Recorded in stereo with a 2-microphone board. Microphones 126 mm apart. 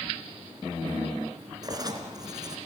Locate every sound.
1.6 s writing: 30° right (ahead or behind), 2.5 m